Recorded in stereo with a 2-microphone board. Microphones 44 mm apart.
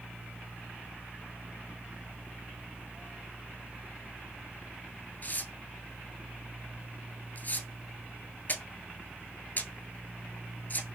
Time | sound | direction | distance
5.2 | tearing paper | 40° left (ahead or behind) | 0.7 m